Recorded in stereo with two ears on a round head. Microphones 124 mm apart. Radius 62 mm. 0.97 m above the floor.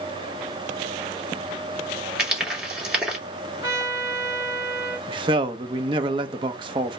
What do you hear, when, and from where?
2.2 s frying: 10° right (ahead or behind), 3 m
3.6 s a trumpet: 20° right (ahead or behind), 1.2 m
5.1 s a man speaking: 35° right (ahead or behind), 0.7 m